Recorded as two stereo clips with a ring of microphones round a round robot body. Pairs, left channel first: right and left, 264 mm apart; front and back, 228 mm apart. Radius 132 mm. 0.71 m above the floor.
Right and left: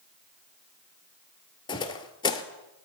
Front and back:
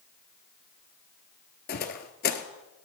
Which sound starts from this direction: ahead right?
Footsteps, at 1.7 s.